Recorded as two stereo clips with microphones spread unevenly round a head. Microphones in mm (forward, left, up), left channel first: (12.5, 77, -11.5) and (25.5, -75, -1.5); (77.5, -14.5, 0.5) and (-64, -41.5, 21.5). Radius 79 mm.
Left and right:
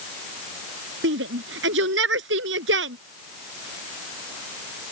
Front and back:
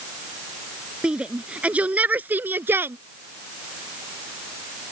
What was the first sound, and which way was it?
A shout, 85° right.